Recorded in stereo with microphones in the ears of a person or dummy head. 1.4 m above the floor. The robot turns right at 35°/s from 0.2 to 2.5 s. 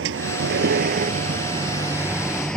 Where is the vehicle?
80° right; by 2.6 s 5° left.